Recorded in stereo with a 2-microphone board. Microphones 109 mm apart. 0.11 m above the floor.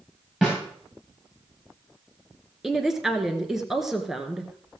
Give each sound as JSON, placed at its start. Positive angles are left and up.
{"t": 0.4, "sound": "a snare drum", "side_deg": -10, "distance_m": 7.0}
{"t": 2.6, "sound": "a woman speaking", "side_deg": -5, "distance_m": 1.4}